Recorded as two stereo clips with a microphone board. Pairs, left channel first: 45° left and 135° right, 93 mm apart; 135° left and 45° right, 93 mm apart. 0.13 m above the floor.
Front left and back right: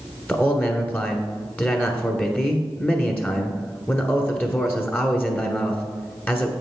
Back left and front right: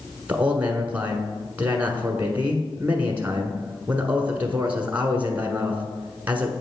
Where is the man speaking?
Straight ahead, 1.2 m.